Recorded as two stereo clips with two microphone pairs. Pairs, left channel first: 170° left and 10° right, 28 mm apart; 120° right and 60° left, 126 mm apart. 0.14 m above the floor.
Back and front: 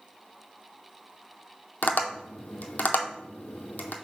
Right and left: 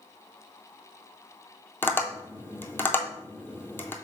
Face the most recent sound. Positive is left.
turn(degrees=170)